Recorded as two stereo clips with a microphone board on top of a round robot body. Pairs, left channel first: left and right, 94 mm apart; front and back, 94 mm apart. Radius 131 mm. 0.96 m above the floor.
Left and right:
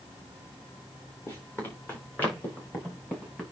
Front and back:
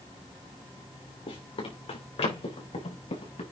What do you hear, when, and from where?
1.3 s running footsteps: 25° left, 4 m; by 3.4 s 10° left, 5 m